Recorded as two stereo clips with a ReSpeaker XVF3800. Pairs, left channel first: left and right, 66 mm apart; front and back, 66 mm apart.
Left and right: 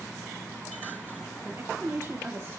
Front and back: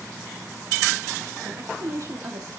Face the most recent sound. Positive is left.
turn(degrees=-145)